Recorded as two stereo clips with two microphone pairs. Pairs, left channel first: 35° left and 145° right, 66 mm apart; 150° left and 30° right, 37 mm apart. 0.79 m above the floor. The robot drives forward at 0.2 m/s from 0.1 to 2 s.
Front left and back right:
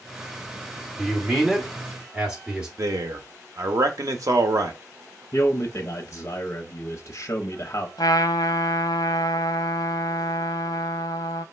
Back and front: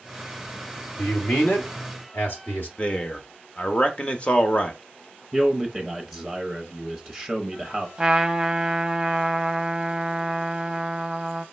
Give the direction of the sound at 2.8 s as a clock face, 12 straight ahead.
5 o'clock.